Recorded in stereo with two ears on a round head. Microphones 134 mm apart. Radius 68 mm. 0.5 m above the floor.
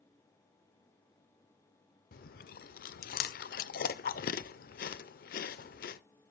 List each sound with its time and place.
2.1 s chewing: 70° left (ahead or behind), 0.5 m